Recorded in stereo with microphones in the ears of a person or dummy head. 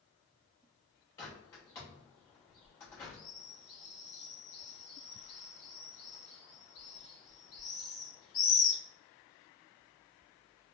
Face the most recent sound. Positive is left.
turn(degrees=15)  # may be behind; listen again after turning